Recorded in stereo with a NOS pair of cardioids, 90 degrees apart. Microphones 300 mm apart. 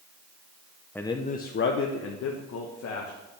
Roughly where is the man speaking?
Ahead.